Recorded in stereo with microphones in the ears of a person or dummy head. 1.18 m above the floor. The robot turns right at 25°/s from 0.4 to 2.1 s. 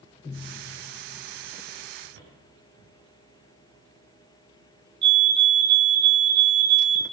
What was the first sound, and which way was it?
Footsteps, 70° right (ahead or behind).